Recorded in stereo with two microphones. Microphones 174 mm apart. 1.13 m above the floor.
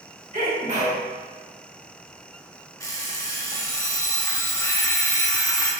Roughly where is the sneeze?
Right.